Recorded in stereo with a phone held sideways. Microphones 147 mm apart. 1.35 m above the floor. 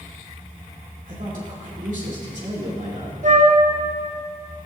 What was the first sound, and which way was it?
A man speaking, 65° right (ahead or behind).